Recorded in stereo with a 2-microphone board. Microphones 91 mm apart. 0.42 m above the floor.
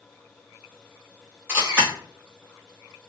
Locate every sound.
1.5 s a camera shutter: 20° right (ahead or behind), 1.6 m